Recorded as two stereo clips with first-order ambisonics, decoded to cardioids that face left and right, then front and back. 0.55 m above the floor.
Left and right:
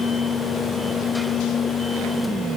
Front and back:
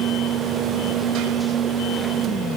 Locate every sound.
Only background noise.